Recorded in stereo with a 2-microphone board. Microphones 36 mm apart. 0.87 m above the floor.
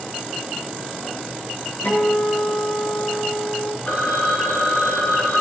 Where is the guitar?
70° left (ahead or behind), 7.5 m.